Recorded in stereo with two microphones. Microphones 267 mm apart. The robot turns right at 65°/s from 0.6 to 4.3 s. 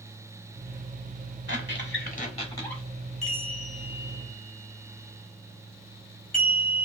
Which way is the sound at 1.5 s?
90° left.